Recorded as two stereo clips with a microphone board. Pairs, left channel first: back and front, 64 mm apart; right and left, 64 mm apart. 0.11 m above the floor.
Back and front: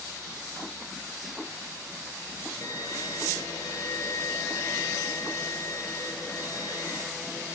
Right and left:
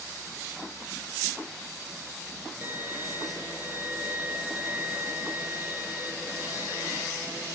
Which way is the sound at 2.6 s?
155° left.